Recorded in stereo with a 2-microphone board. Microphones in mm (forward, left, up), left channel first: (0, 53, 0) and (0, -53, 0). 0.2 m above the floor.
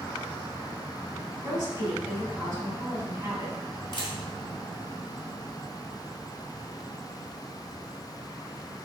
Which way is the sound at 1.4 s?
40° right (ahead or behind).